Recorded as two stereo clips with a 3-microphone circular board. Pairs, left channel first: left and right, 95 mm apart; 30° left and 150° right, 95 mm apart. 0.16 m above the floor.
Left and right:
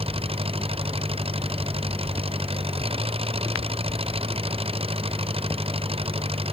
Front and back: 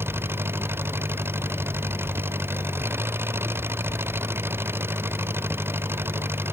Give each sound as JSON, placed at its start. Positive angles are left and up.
{"t": 0.0, "sound": "an engine running", "azimuth_deg": -85}